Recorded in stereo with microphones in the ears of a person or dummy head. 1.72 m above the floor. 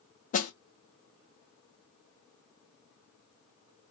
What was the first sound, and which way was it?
A snare drum, 40° left (ahead or behind).